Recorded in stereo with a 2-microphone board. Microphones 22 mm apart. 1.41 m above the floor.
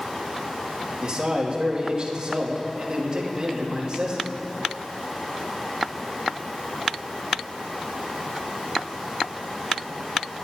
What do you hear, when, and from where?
1.0 s a man speaking: 35° right (ahead or behind), 2.5 m